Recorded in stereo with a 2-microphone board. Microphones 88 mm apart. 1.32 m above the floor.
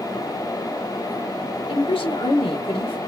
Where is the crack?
I don't hear a crack.